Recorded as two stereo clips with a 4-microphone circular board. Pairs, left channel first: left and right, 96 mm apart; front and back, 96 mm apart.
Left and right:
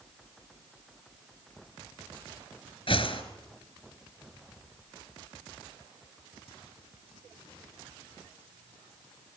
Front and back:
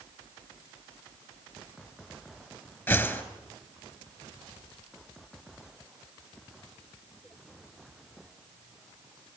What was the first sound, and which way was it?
A whoosh, 70° left.